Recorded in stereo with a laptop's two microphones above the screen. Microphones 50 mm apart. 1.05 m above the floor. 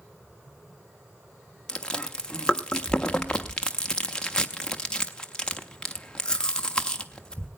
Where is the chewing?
20° left (ahead or behind), 0.7 m.